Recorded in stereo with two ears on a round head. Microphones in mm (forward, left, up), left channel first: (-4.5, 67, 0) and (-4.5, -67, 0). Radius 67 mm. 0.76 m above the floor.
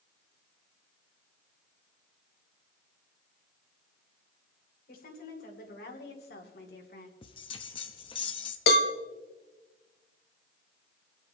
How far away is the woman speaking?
About 3 m.